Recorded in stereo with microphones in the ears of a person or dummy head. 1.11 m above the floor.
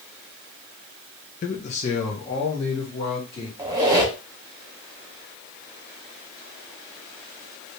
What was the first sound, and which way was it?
A man speaking, 35° left (ahead or behind).